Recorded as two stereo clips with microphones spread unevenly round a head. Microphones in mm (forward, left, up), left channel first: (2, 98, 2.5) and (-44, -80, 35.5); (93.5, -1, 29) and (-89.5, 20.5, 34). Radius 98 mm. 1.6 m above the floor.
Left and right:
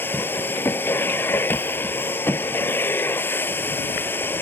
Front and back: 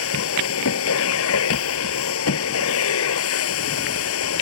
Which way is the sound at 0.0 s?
5° right.